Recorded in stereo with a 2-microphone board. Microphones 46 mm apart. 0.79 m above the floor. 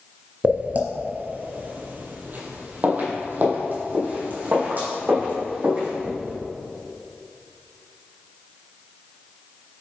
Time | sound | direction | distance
0.4 | footsteps | 35° right (ahead or behind) | 0.9 m